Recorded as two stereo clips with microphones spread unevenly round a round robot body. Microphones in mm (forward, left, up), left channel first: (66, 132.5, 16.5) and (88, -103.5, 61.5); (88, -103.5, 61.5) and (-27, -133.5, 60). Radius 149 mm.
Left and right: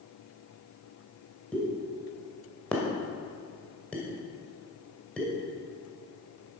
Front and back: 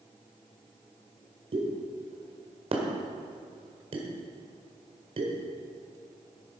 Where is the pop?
175° left, 1.7 m.